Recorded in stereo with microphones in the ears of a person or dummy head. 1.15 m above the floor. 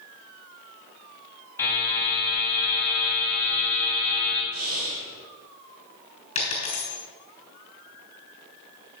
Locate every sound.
1.6 s a buzzer: 20° left (ahead or behind), 3.5 m
4.5 s breathing: 70° right (ahead or behind), 4.5 m
6.3 s a dropped coin: 40° left (ahead or behind), 3.5 m